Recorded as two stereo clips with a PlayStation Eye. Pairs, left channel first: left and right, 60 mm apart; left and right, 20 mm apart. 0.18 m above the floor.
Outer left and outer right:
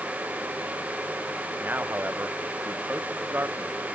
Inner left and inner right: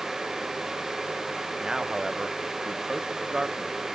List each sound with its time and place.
1.6 s a man speaking: 30° right (ahead or behind)